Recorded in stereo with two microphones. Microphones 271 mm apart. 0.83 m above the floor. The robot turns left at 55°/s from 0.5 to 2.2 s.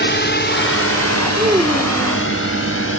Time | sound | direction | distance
0.0 | a drone | 40° left (ahead or behind) | ?
1.4 | a child speaking | 155° right | ?